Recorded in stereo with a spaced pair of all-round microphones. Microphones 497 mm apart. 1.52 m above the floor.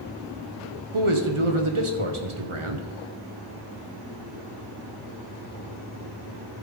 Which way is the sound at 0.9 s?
75° right (ahead or behind).